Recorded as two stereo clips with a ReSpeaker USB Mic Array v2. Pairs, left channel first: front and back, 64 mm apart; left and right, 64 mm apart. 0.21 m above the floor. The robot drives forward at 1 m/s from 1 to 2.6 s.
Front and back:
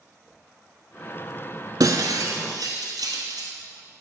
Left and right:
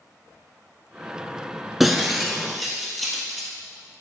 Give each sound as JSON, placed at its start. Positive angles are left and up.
{"t": 1.8, "sound": "breaking glass", "azimuth_deg": -175, "distance_m": 0.6}